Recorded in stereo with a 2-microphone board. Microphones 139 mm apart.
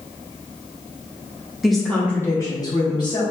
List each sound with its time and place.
1.6 s a woman speaking: 5° right (ahead or behind), 0.7 m; by 3.2 s 35° left (ahead or behind), 0.9 m